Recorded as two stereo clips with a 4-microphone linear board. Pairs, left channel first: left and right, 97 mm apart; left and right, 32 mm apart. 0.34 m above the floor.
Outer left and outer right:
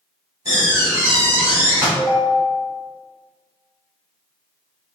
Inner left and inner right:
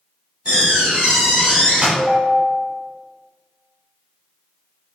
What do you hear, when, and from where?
0.5 s a door slam: 40° right (ahead or behind), 1.9 m
1.9 s a ringtone: 15° left (ahead or behind), 0.8 m